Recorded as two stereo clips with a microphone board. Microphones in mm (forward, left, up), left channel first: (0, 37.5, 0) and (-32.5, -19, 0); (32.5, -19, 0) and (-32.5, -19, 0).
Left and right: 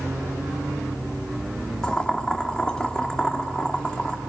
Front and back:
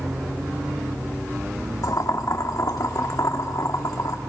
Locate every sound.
1.8 s boiling: 15° right, 1.8 m